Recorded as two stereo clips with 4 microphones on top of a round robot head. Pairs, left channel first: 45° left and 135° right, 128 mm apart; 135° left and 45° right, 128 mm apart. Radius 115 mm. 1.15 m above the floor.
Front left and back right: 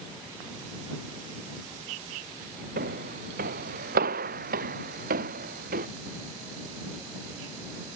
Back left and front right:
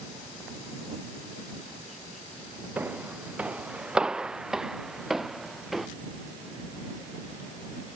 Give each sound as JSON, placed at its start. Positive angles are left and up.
{"t": 2.8, "sound": "footsteps", "azimuth_deg": -125}